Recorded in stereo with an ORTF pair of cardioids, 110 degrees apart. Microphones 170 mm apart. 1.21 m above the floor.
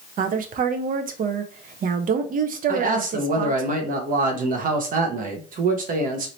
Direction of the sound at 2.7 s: 50° right.